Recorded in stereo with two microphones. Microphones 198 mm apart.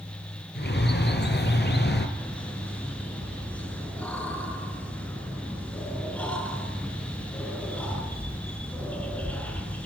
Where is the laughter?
5° left (ahead or behind), 7.5 m.